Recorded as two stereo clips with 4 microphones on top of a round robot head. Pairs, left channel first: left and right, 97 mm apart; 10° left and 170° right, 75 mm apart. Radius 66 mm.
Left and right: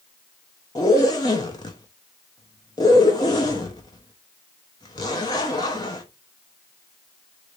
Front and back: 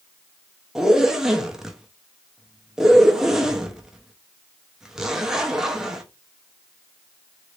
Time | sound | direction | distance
0.8 | a zipper | 115° left | 0.7 m